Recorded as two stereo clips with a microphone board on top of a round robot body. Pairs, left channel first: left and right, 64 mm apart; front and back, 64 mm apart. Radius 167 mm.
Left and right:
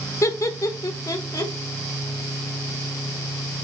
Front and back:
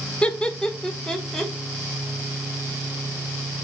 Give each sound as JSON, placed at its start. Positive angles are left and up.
{"t": 0.2, "sound": "laughter", "azimuth_deg": 70, "distance_m": 1.5}